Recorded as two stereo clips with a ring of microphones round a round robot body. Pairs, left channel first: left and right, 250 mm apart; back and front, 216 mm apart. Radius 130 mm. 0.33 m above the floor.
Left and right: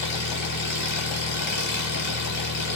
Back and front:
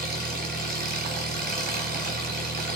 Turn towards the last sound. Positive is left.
turn(degrees=45)